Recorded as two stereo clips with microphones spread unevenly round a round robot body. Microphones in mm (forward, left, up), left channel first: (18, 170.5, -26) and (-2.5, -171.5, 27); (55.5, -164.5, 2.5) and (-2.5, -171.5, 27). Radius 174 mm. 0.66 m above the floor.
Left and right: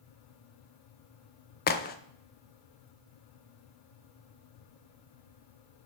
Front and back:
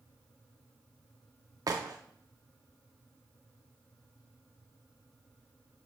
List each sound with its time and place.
1.7 s a crack: 135° left, 0.5 m